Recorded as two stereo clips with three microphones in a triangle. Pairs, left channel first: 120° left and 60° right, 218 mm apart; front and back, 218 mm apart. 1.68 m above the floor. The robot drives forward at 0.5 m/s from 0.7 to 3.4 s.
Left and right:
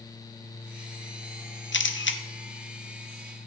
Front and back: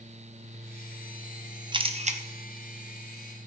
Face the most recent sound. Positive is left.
turn(degrees=155)